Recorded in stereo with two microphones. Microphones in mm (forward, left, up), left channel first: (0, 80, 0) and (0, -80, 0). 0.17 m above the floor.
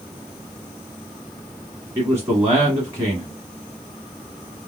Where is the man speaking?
20° right (ahead or behind), 1.4 m.